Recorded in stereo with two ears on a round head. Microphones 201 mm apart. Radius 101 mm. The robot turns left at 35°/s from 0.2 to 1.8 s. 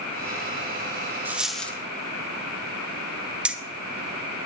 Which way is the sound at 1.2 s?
10° right (ahead or behind).